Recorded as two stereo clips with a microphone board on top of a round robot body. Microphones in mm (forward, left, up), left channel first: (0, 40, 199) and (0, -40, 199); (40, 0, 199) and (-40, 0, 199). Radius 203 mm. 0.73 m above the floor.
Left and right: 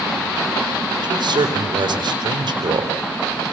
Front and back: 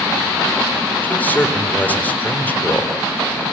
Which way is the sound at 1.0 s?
70° right.